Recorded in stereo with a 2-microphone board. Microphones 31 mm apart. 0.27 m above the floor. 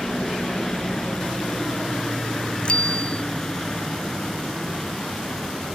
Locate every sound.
0.0 s a helicopter: 20° left (ahead or behind); by 5.8 s 15° left (ahead or behind)
2.6 s a bicycle bell: 35° left (ahead or behind)